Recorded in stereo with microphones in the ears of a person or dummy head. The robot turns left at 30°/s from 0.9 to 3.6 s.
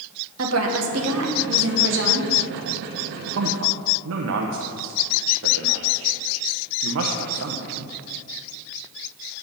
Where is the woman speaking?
85° right, 1.5 m; by 2.3 s 130° right, 1.5 m.